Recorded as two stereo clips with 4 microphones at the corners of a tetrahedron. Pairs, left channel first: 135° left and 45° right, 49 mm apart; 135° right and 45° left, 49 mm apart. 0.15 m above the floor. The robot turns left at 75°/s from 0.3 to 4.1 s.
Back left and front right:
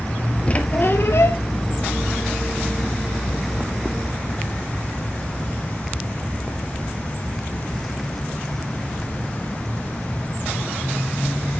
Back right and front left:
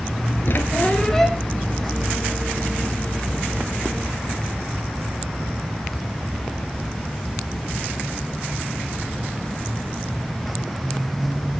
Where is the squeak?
160° right, 0.9 m; by 1.4 s 125° left, 0.9 m.